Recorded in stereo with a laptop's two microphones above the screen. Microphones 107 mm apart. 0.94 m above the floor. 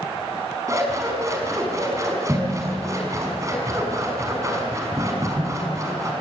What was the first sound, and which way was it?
Scissors, 30° right (ahead or behind).